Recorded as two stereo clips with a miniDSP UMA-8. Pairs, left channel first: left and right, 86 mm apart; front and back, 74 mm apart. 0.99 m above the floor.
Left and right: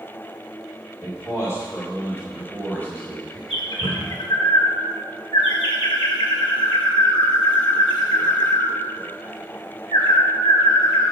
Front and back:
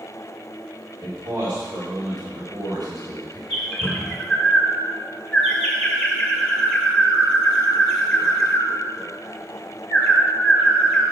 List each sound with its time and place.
1.0 s a man speaking: 145° left, 3 m; by 3.4 s 165° left, 5 m
3.5 s a bird: 80° left, 2 m